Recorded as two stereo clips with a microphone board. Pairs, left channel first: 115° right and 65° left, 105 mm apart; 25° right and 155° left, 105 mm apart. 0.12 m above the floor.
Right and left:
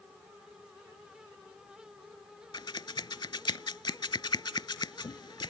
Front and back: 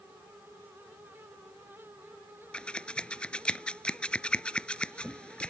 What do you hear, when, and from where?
2.5 s scissors: 100° right